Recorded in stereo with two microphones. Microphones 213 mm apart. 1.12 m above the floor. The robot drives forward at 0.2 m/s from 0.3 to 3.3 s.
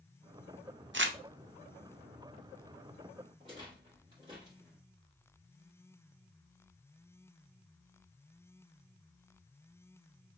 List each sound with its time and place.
0.9 s crumpling: 60° right (ahead or behind), 0.5 m; by 1.2 s 65° right (ahead or behind), 0.5 m
3.4 s a rattle: 20° right (ahead or behind), 2 m